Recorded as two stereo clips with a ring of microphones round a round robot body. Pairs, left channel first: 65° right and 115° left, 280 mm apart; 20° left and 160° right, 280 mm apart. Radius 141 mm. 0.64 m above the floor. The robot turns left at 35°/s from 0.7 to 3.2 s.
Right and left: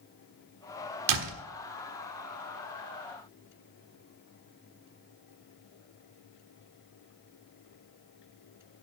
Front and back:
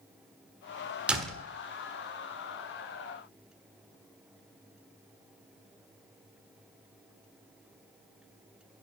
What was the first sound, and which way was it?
A door slam, 115° left.